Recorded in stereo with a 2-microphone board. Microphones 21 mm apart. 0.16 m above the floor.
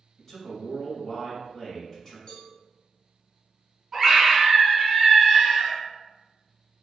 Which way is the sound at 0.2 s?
25° left (ahead or behind).